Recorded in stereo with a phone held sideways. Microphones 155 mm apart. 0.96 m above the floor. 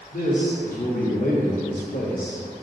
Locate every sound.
0.1 s a man speaking: 65° left (ahead or behind), 1.3 m